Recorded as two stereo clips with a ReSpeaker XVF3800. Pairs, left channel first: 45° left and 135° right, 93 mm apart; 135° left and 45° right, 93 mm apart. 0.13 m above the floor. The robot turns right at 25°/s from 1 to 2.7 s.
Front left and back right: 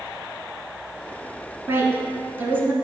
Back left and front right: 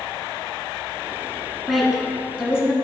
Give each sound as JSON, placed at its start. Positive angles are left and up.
{"t": 1.7, "sound": "a woman speaking", "azimuth_deg": -135, "distance_m": 1.1}